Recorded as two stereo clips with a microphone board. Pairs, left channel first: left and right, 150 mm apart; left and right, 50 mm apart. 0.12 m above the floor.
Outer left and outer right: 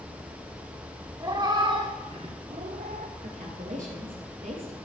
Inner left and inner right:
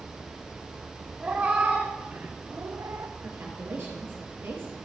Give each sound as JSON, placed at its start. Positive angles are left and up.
{"t": 1.2, "sound": "a cat meowing", "side_deg": -25, "distance_m": 1.8}
{"t": 3.2, "sound": "a woman speaking", "side_deg": -60, "distance_m": 3.0}